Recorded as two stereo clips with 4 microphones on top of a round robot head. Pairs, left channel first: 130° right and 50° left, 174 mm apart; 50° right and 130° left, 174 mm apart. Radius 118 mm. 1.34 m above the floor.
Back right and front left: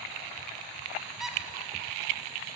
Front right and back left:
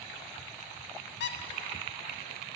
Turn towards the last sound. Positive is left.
turn(degrees=-35)